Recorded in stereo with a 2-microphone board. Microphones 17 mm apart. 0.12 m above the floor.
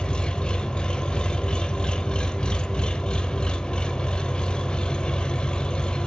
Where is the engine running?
70° left (ahead or behind), 0.8 m.